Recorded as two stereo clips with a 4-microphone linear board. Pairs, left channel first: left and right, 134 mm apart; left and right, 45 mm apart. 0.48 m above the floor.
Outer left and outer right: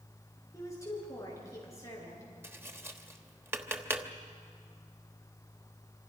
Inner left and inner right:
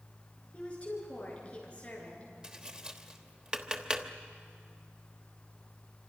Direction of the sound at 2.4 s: 20° right (ahead or behind).